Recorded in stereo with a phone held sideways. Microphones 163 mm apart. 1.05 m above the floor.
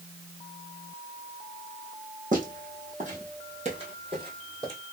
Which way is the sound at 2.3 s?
55° right (ahead or behind).